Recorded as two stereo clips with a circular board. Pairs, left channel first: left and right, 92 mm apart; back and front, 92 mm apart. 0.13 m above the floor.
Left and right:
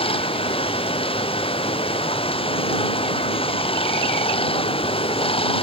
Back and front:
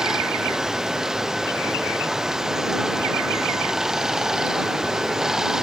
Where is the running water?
85° left.